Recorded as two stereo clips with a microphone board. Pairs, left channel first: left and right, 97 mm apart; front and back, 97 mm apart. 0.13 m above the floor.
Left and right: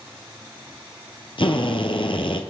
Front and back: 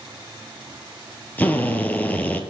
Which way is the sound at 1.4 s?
70° left.